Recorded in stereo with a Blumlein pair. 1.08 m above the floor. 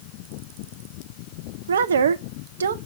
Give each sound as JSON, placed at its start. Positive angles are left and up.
{"t": 1.7, "sound": "a woman speaking", "azimuth_deg": -65, "distance_m": 0.6}